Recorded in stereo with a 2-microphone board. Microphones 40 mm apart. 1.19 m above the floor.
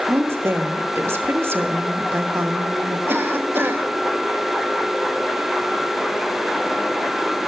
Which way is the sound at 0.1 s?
80° right.